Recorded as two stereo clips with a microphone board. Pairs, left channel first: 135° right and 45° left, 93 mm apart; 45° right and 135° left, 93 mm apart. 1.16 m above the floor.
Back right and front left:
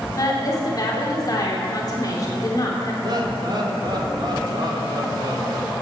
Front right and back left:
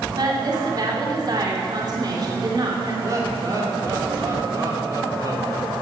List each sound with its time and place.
0.1 s a woman speaking: 175° left, 3 m
3.0 s laughter: 85° left, 3.5 m